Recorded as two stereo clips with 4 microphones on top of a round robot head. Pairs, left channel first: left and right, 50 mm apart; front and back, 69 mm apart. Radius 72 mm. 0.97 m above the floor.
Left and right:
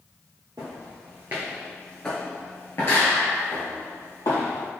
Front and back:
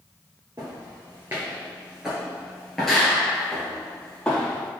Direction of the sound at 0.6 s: 120° right.